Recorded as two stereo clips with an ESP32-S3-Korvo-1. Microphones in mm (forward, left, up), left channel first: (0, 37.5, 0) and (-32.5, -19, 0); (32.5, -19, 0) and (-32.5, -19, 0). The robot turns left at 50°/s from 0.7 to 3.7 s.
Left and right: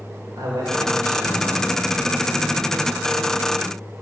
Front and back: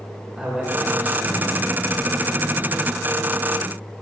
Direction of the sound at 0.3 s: 100° right.